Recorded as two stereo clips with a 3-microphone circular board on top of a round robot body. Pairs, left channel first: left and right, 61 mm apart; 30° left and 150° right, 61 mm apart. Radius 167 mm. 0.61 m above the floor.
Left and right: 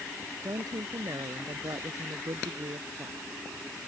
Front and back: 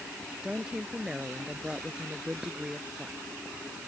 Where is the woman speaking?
75° right.